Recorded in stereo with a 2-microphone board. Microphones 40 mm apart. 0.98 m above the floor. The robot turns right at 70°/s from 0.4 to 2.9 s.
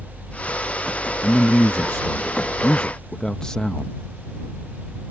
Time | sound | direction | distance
1.2 | a man speaking | 40° left | ?